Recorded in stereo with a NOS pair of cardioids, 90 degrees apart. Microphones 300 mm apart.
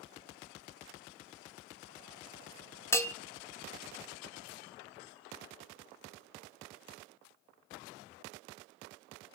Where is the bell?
10° left, 0.6 m.